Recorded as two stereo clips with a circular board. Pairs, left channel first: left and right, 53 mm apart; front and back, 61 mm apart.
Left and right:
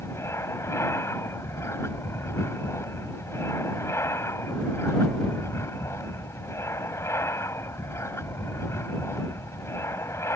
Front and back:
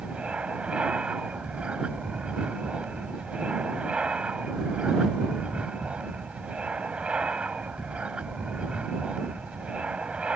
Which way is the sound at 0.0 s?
105° left.